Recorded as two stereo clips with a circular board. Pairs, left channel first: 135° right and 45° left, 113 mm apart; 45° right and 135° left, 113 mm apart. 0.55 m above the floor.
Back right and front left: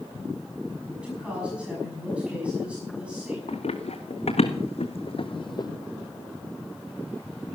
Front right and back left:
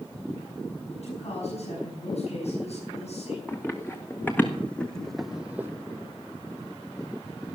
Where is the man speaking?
35° right, 5.5 m.